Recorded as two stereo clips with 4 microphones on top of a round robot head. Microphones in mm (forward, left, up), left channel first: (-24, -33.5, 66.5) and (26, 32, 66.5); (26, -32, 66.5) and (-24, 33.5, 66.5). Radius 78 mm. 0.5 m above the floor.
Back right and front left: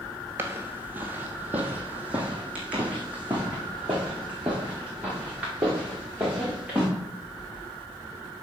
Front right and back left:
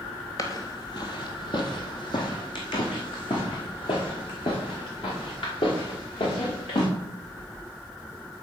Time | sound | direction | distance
0.4 | footsteps | 5° right | 0.6 m